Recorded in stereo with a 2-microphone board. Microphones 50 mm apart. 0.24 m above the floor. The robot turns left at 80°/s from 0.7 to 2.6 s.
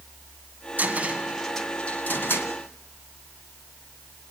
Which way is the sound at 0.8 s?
40° right (ahead or behind).